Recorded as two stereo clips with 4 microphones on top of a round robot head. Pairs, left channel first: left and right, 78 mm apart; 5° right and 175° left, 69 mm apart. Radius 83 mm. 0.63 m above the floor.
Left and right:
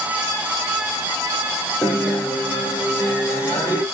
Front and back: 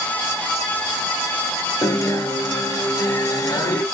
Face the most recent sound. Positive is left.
turn(degrees=25)